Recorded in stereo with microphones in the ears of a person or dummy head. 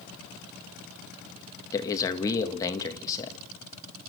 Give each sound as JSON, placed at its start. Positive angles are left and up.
{"t": 1.7, "sound": "a man speaking", "side_deg": 20, "distance_m": 1.9}